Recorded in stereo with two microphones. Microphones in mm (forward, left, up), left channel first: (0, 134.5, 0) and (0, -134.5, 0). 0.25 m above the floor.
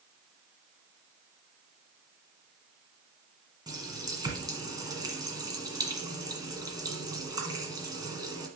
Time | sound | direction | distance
3.7 | a running tap | 15° right (ahead or behind) | 1.5 m